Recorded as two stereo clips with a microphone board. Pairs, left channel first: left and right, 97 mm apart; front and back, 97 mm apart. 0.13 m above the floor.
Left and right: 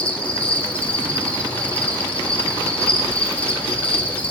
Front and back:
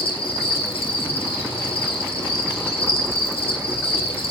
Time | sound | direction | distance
0.0 | an insect | 15° left | 0.9 m